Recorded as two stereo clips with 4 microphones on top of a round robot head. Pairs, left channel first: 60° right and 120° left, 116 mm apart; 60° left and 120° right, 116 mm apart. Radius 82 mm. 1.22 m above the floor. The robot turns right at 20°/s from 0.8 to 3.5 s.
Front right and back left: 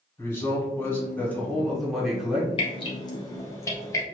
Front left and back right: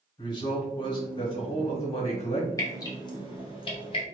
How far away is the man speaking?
About 1.4 m.